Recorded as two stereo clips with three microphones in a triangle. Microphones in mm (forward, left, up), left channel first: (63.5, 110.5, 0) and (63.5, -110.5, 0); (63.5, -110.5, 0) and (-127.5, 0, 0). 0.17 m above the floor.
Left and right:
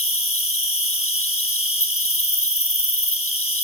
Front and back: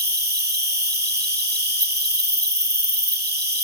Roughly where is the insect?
Left.